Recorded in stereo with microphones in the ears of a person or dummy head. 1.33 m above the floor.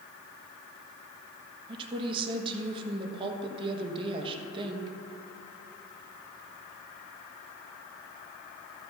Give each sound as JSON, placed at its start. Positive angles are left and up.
{"t": 1.7, "sound": "a woman speaking", "side_deg": -25, "distance_m": 1.2}